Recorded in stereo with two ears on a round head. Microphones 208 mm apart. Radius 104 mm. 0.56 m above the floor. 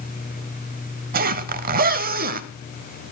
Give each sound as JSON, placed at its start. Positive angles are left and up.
{"t": 1.1, "sound": "a zipper", "side_deg": -40, "distance_m": 0.7}